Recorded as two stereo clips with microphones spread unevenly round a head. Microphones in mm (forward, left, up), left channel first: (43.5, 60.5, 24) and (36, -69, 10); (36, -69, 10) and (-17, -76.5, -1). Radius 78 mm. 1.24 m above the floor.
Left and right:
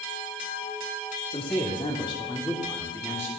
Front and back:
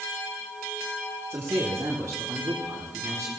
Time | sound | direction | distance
1.3 | a man speaking | 140° left | 2.5 m